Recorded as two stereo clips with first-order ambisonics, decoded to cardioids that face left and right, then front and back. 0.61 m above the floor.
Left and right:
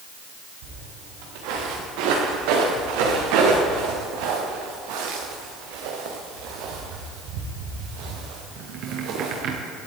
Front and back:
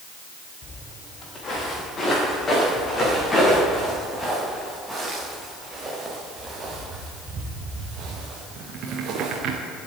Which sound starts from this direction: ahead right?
Footsteps, at 0.6 s.